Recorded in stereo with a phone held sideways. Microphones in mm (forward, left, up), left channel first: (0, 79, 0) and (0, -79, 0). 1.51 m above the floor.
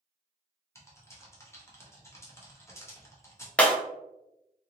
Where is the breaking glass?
10° left (ahead or behind), 0.6 m.